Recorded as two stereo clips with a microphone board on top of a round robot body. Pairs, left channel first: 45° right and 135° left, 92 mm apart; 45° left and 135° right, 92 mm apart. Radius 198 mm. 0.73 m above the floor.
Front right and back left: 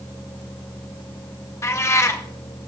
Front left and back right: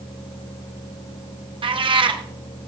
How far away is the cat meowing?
About 0.9 m.